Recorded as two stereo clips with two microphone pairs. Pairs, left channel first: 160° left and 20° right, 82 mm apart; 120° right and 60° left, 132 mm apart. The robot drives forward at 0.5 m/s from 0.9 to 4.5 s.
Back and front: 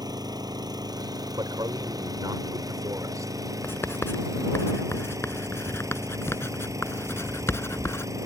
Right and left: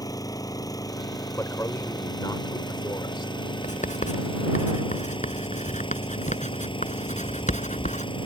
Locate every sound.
0.0 s an engine running: 55° right; by 8.3 s 70° right
1.4 s a man speaking: 50° right; by 3.3 s 65° right
3.6 s writing: 135° right; by 8.1 s 140° right